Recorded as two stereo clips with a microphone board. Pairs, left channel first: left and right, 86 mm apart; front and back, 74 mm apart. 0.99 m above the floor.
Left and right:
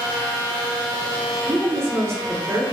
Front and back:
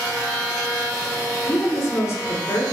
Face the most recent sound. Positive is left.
turn(degrees=-40)